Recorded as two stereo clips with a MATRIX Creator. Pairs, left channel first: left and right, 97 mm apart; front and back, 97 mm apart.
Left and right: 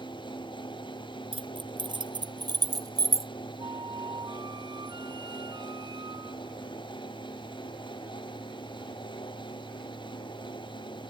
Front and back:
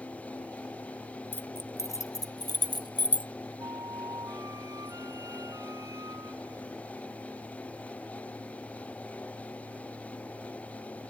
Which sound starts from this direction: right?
Keys jangling, at 1.3 s.